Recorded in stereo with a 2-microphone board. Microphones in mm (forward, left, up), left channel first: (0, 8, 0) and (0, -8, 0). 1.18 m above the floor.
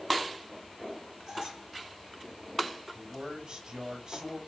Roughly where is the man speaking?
Right.